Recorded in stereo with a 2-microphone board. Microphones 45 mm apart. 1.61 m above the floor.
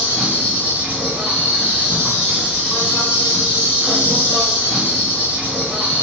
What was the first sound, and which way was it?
An insect, 30° right (ahead or behind).